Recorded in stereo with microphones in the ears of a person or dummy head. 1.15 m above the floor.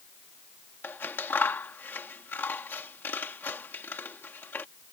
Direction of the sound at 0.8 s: 10° left (ahead or behind).